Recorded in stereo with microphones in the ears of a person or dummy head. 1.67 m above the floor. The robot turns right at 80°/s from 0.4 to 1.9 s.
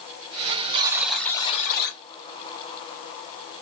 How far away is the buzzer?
About 0.9 m.